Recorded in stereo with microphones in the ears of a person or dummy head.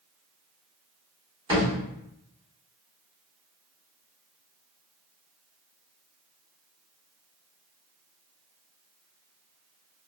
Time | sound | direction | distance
1.5 | a thud | 25° right (ahead or behind) | 2.0 m